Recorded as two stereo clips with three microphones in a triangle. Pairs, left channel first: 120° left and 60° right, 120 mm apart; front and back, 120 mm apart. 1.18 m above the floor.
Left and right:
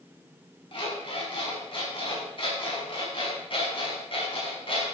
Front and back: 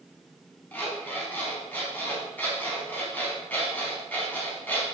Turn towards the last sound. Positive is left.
turn(degrees=75)